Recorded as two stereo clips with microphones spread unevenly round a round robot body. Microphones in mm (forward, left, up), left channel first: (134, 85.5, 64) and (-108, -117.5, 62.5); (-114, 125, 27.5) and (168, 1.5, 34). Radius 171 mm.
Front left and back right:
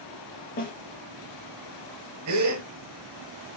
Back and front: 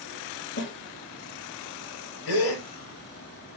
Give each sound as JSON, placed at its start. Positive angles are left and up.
{"t": 0.6, "sound": "a snare drum", "azimuth_deg": 105, "distance_m": 4.5}
{"t": 2.3, "sound": "a gasp", "azimuth_deg": 180, "distance_m": 5.5}